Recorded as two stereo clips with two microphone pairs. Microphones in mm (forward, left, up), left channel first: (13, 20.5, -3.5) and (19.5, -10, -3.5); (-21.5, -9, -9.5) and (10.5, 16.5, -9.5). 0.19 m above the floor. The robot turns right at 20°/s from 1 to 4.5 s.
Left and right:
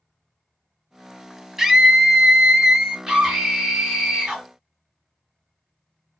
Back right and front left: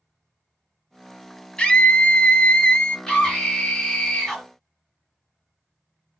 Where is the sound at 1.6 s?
145° right, 1.0 m; by 3.0 s 120° right, 1.0 m.